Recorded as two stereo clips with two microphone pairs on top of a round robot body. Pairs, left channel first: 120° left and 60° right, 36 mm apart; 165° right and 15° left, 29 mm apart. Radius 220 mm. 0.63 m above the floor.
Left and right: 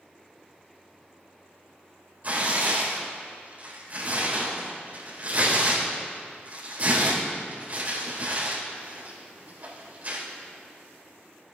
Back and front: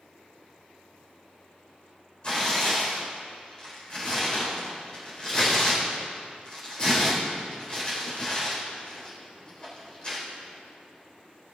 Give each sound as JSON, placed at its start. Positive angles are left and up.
{"t": 2.2, "sound": "tearing paper", "azimuth_deg": -110, "distance_m": 4.5}